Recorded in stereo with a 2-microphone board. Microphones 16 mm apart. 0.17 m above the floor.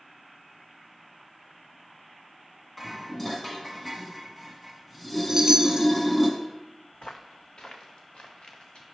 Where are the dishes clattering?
10° left (ahead or behind), 1.2 m.